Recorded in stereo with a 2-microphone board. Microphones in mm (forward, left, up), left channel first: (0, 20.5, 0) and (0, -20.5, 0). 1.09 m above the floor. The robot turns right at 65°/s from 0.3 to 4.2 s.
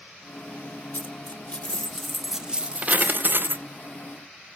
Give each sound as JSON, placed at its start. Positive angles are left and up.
{"t": 0.9, "sound": "a dropped coin", "azimuth_deg": 105, "distance_m": 0.5}